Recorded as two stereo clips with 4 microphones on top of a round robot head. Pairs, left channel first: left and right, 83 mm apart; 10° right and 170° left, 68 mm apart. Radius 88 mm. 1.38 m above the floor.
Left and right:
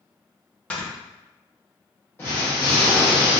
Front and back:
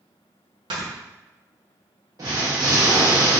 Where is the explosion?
145° left, 0.9 m.